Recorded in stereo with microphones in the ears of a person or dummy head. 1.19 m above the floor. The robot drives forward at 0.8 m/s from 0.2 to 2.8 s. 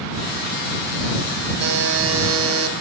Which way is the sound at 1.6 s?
50° right (ahead or behind).